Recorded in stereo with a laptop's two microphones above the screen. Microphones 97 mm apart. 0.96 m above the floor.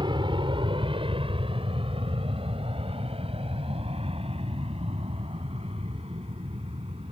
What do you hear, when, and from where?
0.0 s an aircraft: 55° right (ahead or behind); by 7.1 s 85° right